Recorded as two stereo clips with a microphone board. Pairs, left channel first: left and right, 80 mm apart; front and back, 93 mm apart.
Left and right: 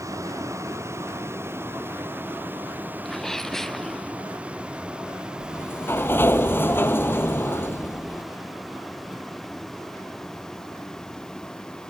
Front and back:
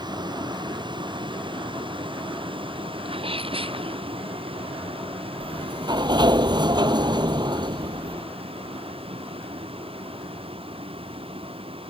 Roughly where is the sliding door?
Behind left.